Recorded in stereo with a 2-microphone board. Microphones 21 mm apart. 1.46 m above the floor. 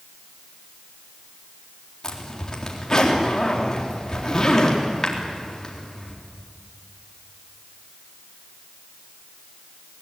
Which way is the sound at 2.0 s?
30° left (ahead or behind).